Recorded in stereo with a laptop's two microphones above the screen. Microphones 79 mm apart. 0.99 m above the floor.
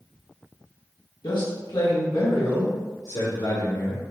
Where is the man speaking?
75° left (ahead or behind), 1.3 m; by 4.0 s 80° left, 2.5 m.